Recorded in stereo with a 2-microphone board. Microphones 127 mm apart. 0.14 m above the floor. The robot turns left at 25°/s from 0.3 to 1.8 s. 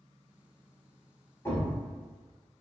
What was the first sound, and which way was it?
A thud, 25° left (ahead or behind).